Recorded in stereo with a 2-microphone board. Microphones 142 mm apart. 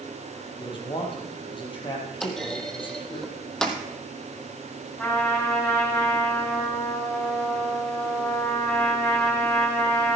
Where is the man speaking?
35° left (ahead or behind), 4 m.